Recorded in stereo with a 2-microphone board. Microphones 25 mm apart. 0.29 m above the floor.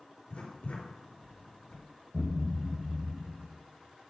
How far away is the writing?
About 3.5 m.